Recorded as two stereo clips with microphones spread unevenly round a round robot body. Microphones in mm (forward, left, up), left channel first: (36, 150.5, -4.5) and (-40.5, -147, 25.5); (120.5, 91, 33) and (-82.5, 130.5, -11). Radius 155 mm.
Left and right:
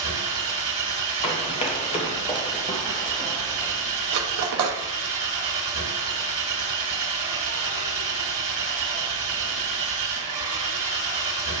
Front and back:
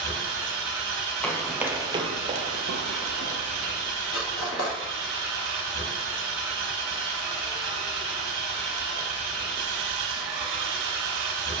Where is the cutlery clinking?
65° right, 0.8 m.